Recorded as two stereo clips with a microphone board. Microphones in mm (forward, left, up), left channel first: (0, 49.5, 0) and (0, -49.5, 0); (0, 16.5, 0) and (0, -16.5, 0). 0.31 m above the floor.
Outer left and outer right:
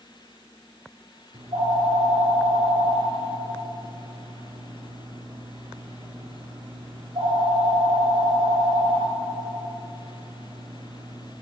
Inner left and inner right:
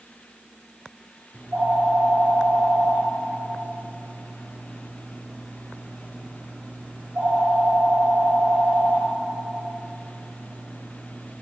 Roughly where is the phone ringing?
Right.